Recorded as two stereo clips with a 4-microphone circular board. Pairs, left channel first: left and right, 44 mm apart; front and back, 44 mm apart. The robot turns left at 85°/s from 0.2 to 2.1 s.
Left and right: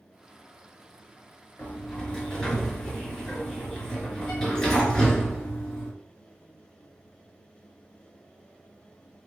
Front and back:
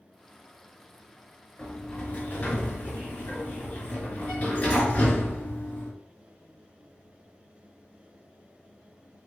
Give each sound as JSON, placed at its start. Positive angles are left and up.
{"t": 1.6, "sound": "a sliding door", "azimuth_deg": 70, "distance_m": 1.7}